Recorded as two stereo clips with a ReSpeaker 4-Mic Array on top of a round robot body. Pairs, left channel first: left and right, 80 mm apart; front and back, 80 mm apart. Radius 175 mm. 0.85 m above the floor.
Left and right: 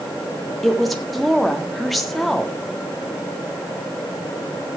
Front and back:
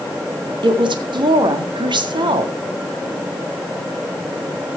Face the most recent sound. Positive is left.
turn(degrees=180)